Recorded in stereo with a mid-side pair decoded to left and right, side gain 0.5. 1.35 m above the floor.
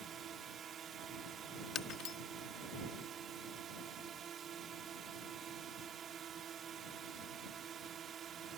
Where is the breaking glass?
65° left.